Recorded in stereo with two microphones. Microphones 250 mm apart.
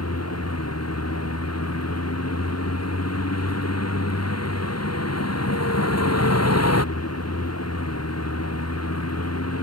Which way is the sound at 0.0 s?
80° left.